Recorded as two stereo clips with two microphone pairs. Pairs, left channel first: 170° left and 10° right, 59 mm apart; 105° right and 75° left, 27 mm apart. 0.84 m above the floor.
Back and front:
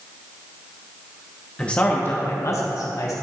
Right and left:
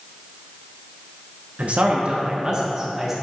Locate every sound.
1.6 s a man speaking: 100° left, 0.8 m; by 3.1 s 155° left, 1.3 m